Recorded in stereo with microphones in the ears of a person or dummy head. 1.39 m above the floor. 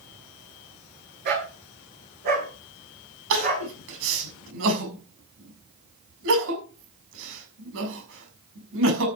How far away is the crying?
About 6.5 m.